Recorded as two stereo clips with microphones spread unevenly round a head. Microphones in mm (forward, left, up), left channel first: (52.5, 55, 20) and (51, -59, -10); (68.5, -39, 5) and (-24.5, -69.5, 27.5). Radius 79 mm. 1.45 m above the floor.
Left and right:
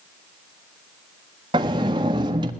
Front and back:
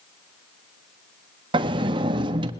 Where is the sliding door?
160° right, 1.2 m.